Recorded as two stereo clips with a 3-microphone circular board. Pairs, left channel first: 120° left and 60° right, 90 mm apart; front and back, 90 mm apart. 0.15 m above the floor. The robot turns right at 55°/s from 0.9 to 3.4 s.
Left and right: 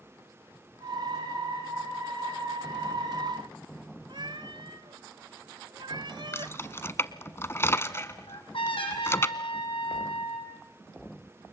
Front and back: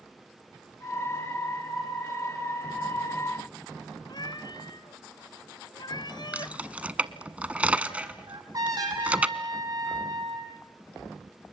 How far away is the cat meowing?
About 1.3 m.